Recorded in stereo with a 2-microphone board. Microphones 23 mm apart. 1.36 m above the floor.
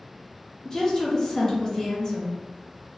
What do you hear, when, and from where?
0.7 s a woman speaking: 25° left (ahead or behind), 0.8 m